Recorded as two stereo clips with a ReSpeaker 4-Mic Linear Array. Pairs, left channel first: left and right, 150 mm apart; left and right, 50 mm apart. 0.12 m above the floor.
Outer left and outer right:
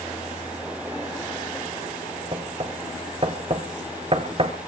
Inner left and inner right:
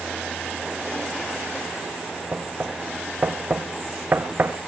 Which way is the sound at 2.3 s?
40° right (ahead or behind).